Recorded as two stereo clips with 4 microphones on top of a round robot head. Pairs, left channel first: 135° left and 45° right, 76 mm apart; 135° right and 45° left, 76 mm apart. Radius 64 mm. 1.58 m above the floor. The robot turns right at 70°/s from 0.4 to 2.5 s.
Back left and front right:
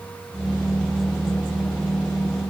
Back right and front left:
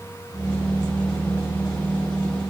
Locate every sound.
Only background noise.